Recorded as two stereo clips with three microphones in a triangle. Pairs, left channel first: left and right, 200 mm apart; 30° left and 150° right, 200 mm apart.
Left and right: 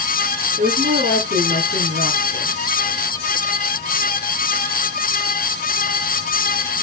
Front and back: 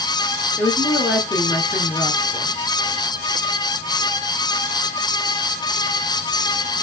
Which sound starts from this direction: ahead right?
A woman speaking, at 0.6 s.